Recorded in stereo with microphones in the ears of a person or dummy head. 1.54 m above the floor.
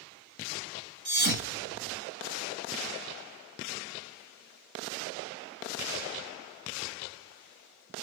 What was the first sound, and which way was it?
A thud, 50° right (ahead or behind).